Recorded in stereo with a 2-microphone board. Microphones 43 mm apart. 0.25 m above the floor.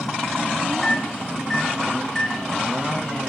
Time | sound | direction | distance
0.8 | a microwave | 5° left (ahead or behind) | 1.7 m